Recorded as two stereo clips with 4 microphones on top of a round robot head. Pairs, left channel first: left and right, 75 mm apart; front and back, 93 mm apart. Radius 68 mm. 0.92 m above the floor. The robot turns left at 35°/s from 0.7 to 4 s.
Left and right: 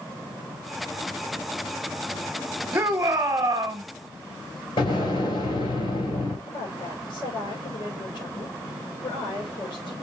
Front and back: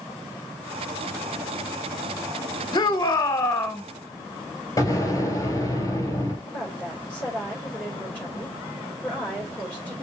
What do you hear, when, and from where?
2.7 s a shout: 35° right, 1.2 m; by 3.8 s 70° right, 1.2 m
4.8 s an explosion: 50° left, 3.5 m
6.5 s a woman speaking: 75° left, 4 m